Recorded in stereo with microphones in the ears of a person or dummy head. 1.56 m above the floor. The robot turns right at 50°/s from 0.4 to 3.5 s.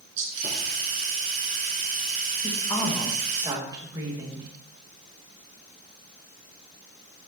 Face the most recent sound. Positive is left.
turn(degrees=-155)